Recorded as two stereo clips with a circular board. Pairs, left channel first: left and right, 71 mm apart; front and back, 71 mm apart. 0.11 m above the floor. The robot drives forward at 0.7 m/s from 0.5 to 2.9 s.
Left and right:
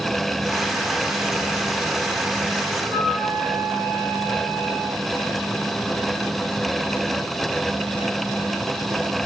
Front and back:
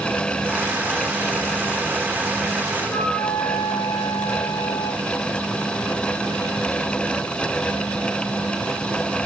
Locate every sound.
2.8 s a flute: 55° right, 4 m